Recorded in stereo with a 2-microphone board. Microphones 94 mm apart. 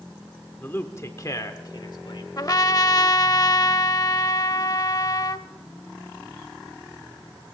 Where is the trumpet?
40° left (ahead or behind), 0.6 m.